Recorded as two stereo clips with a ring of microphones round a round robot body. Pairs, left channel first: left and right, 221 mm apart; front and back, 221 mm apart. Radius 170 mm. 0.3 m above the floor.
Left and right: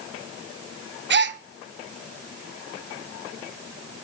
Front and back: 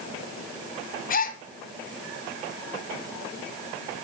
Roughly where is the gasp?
Ahead right.